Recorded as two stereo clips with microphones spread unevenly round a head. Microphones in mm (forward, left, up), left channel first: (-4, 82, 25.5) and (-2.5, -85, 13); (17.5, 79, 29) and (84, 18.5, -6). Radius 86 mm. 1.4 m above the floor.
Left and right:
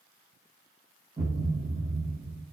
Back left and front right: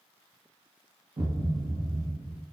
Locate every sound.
1.2 s a thud: 15° right, 0.9 m